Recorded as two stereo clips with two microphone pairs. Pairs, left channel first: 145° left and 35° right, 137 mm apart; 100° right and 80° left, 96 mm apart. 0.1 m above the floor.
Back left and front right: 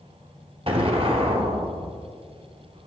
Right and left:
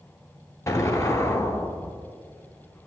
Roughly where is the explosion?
Ahead right.